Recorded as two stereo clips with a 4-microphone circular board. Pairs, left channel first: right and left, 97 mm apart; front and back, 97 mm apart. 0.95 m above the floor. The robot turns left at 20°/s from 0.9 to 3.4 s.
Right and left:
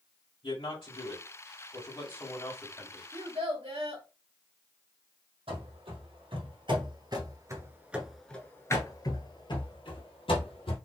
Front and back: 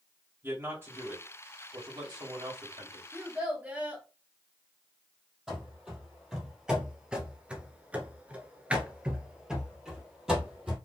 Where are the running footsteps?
95° left, 2.5 m; by 10.8 s 95° right, 2.5 m.